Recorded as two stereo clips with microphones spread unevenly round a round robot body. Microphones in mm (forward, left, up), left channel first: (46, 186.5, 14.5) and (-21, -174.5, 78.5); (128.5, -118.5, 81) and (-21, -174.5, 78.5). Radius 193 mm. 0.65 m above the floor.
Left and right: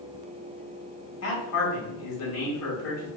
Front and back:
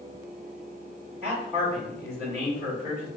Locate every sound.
1.2 s a man speaking: 120° left, 1.7 m